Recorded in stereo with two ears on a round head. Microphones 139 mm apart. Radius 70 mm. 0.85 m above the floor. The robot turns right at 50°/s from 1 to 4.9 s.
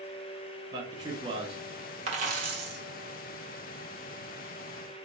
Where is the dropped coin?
135° right, 1.2 m; by 2.8 s 100° right, 1.2 m.